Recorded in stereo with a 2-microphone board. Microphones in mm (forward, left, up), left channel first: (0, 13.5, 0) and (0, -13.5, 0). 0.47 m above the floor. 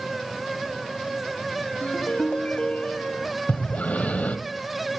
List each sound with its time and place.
1.8 s a ringtone: 65° left (ahead or behind), 1.2 m
3.5 s breathing: 75° left (ahead or behind), 0.9 m